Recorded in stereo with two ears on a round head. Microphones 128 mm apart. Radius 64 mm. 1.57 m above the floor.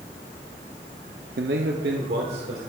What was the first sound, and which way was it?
A man speaking, 80° right.